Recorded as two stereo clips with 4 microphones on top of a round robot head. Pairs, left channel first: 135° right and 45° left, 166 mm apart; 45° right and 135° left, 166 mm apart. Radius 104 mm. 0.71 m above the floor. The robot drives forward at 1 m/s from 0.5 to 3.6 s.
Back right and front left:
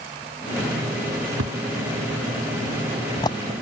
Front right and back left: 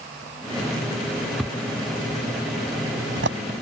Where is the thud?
45° left; by 3.4 s 160° left.